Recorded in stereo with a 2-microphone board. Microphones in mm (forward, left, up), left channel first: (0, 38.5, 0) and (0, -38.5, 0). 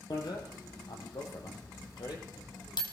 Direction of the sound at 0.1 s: 70° left (ahead or behind).